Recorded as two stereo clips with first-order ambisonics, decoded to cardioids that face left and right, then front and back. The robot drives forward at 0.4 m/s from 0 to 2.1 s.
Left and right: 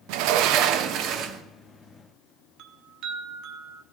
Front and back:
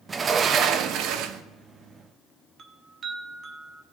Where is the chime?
120° right, 1.0 m.